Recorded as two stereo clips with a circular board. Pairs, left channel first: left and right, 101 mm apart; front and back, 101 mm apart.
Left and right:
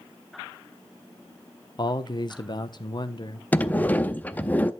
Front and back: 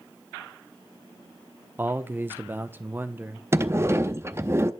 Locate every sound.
1.8 s a man speaking: 115° left, 1.0 m
3.5 s a sliding door: 145° left, 0.6 m